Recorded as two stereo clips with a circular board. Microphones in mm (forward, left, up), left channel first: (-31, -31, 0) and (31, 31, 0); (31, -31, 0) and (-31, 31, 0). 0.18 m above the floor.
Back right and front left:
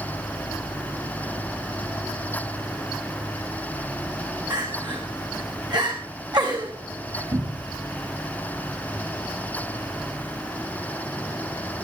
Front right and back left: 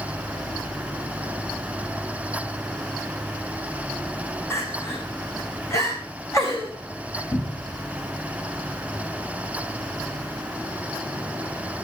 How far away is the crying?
About 5 m.